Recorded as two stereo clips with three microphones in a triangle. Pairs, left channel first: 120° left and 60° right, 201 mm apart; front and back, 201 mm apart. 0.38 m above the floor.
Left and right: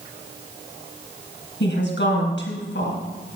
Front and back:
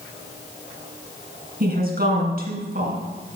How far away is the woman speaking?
About 3 m.